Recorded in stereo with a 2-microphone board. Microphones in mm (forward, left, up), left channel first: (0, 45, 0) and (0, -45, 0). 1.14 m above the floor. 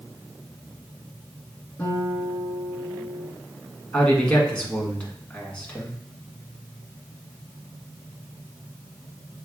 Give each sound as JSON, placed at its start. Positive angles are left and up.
{"t": 1.8, "sound": "a guitar", "side_deg": 25, "distance_m": 2.0}
{"t": 3.9, "sound": "a man speaking", "side_deg": 15, "distance_m": 1.5}